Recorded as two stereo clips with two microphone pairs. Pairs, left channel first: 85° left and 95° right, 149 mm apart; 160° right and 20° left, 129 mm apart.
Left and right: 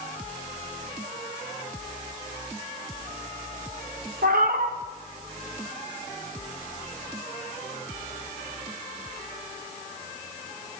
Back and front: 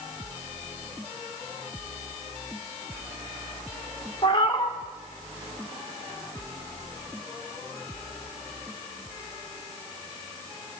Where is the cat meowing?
105° right, 0.8 m.